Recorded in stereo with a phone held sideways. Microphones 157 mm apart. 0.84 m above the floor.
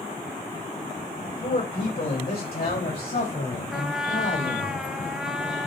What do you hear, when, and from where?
1.2 s a man speaking: 70° left (ahead or behind), 2.5 m; by 4.7 s 80° left, 4.5 m
3.7 s a trumpet: 5° right (ahead or behind), 0.8 m